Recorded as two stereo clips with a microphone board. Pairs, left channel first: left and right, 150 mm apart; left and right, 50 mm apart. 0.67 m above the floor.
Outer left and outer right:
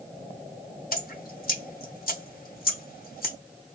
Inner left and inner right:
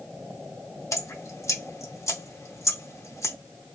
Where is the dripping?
75° left (ahead or behind), 0.7 m.